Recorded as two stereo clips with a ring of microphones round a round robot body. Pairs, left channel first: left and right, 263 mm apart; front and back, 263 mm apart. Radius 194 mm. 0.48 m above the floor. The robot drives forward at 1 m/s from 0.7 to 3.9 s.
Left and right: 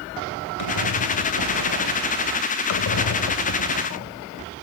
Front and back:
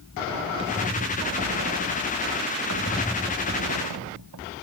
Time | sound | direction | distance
0.6 | a squeak | 105° left | ?
2.7 | a squeak | 50° left | ?